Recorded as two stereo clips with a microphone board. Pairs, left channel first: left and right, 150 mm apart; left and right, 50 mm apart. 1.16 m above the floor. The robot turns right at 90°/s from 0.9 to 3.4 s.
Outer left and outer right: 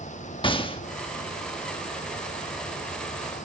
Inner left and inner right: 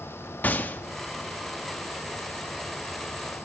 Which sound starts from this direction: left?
A gunshot, at 0.4 s.